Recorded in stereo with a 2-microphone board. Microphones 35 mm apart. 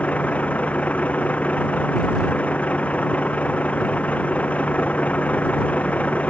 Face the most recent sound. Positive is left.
turn(degrees=40)  # may be behind; listen again after turning